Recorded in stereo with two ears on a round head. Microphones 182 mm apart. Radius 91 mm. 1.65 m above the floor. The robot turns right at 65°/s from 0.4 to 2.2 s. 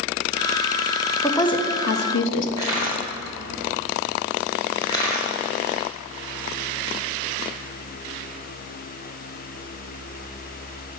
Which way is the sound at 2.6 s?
20° left (ahead or behind).